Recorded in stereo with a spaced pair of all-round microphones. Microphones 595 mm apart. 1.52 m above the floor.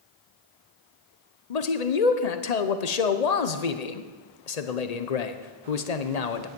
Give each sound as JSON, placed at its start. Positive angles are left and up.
{"t": 1.5, "sound": "a man speaking", "side_deg": 80, "distance_m": 0.9}